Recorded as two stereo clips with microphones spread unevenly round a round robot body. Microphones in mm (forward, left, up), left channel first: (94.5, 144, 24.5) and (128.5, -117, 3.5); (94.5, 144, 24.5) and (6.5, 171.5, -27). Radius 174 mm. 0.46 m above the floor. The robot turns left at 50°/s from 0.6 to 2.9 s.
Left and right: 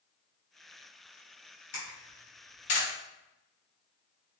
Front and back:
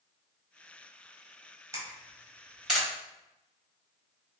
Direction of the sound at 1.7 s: 145° left.